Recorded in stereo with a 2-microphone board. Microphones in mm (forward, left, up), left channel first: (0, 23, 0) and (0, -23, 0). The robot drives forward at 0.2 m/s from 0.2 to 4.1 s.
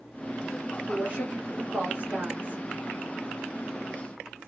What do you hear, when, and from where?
0.9 s a woman speaking: 30° right (ahead or behind), 1.8 m